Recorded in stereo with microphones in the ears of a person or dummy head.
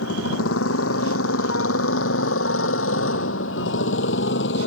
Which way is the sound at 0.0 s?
90° left.